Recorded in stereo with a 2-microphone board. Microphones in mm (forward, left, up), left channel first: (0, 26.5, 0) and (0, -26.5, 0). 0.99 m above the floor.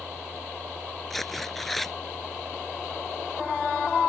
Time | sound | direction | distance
1.1 | tearing paper | 5° left (ahead or behind) | ?